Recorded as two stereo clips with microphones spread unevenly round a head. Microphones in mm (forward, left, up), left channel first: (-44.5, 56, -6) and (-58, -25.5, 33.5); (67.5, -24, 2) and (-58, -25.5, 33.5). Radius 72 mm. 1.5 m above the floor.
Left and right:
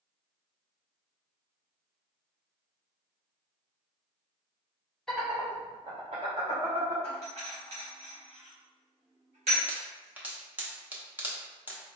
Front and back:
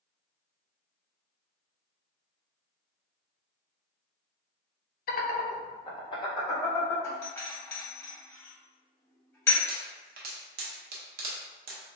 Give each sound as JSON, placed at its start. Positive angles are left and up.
{"t": 5.1, "sound": "laughter", "azimuth_deg": -15, "distance_m": 0.8}
{"t": 7.0, "sound": "a doorbell", "azimuth_deg": -70, "distance_m": 1.7}
{"t": 9.7, "sound": "a pop", "azimuth_deg": -170, "distance_m": 0.9}